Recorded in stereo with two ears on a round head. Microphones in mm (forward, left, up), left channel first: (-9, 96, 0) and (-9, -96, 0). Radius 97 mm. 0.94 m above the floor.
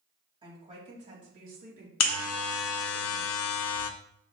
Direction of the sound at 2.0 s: 70° left (ahead or behind).